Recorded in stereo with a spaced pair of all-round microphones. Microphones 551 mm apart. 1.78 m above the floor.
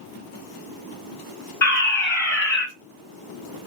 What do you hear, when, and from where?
1.6 s a fire alarm: 50° left (ahead or behind), 3 m